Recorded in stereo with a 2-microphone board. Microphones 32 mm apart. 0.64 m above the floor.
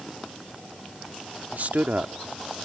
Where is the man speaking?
55° right (ahead or behind).